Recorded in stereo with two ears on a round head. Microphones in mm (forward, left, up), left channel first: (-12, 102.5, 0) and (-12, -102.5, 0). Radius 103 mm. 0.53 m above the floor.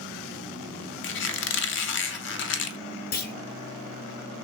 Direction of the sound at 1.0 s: 55° left (ahead or behind).